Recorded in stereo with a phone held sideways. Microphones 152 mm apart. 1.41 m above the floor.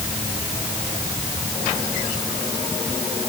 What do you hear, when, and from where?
Only background noise.